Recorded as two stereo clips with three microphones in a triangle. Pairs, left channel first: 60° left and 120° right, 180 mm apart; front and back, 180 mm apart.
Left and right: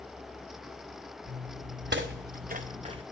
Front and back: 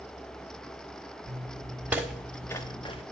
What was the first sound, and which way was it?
Footsteps, 125° right.